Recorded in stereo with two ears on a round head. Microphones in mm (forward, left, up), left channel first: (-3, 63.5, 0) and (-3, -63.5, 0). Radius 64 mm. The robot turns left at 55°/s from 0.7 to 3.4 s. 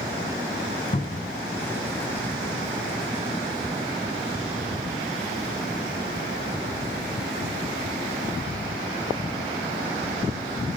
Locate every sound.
0.9 s a cupboard door: 35° left (ahead or behind), 2.5 m; by 1.3 s 55° left (ahead or behind), 2.5 m